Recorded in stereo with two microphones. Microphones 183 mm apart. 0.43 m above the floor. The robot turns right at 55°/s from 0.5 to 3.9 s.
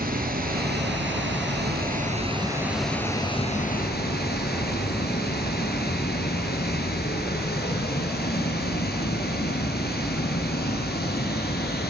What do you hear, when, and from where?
0.0 s running water: 130° right, 3 m; by 11.9 s 60° left, 3 m